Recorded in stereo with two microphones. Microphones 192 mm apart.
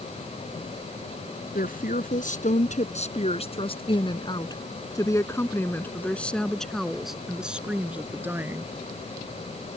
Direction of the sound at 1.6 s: 50° left (ahead or behind).